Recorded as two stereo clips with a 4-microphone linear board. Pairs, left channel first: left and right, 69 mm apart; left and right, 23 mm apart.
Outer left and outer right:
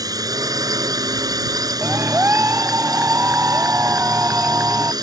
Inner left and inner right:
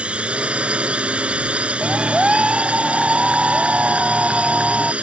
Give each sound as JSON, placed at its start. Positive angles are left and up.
{"t": 0.0, "sound": "a drone", "side_deg": -60}
{"t": 1.8, "sound": "a clap", "side_deg": -30}